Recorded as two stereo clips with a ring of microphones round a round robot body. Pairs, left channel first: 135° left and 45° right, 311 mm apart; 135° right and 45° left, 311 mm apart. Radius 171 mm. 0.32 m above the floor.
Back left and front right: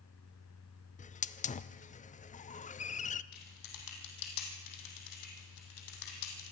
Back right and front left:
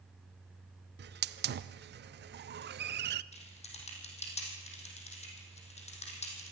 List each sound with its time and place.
1.0 s a hiss: 80° left, 0.6 m
3.3 s typing on a keyboard: 155° left, 3.5 m